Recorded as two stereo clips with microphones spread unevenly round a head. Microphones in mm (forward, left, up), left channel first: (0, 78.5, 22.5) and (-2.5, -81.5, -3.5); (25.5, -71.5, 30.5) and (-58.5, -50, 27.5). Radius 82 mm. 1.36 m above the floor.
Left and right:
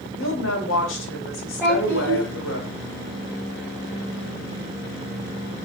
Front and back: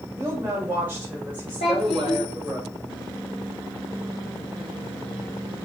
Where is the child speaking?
5° right, 2.5 m.